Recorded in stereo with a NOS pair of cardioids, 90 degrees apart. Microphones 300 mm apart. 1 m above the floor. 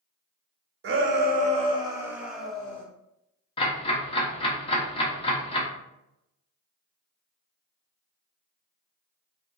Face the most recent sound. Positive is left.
turn(degrees=20)